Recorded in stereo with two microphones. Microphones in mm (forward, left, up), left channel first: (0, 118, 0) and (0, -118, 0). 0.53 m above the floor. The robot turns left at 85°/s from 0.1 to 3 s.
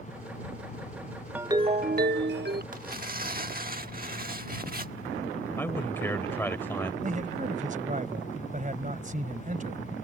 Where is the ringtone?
10° right; by 2.6 s 120° right.